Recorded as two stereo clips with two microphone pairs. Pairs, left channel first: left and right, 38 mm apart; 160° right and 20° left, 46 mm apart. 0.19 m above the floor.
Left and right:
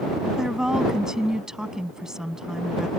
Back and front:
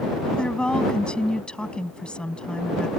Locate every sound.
0.3 s a woman speaking: 130° right